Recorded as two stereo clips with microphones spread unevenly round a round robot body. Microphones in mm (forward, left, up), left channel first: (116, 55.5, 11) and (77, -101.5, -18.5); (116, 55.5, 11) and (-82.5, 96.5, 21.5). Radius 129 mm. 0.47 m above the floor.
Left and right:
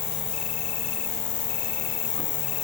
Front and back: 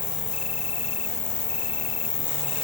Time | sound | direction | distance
0.0 | an insect | 45° left | 1.1 m